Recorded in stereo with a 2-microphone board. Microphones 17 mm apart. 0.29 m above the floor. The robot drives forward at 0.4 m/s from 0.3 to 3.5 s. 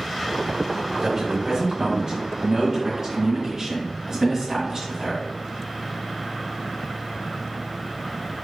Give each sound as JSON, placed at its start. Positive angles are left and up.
{"t": 1.0, "sound": "a man speaking", "side_deg": -30, "distance_m": 1.1}